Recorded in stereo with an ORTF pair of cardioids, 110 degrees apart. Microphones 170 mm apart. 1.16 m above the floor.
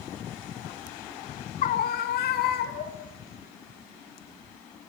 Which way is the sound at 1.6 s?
50° left.